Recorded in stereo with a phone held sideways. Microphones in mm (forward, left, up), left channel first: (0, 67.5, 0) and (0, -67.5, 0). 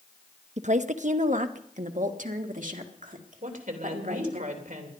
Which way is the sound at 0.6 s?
60° right (ahead or behind).